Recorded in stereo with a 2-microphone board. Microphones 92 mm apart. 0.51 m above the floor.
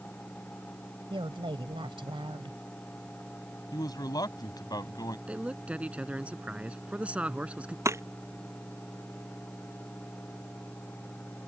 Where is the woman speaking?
70° right (ahead or behind).